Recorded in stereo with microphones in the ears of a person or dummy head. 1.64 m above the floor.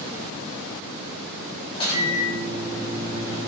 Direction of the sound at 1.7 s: 30° left (ahead or behind).